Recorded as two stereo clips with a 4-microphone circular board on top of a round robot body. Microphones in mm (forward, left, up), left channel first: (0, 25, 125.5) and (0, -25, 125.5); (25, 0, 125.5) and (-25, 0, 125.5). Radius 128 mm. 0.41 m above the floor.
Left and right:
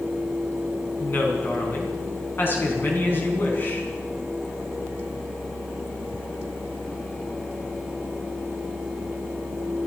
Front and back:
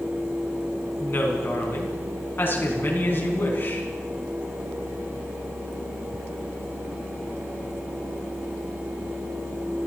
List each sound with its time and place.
1.0 s a woman speaking: 45° left, 5 m